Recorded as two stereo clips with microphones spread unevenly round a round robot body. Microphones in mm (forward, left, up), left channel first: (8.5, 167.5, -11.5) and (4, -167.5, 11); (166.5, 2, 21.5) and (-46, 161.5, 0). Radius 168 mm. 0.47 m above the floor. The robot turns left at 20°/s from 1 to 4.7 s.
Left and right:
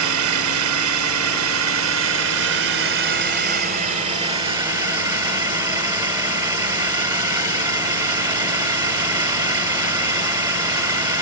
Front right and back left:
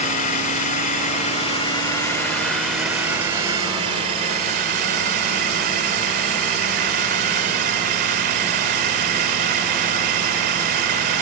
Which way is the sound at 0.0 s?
95° right.